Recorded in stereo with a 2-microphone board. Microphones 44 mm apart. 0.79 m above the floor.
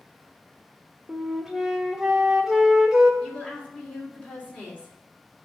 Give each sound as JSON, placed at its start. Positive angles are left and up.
{"t": 1.1, "sound": "a flute", "side_deg": -5, "distance_m": 1.2}
{"t": 3.2, "sound": "a woman speaking", "side_deg": 30, "distance_m": 2.5}